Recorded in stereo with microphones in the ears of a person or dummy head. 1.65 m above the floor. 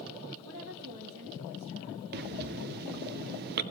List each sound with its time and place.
0.4 s a woman speaking: 80° right, 2.5 m
2.1 s breathing: 50° right (ahead or behind), 0.6 m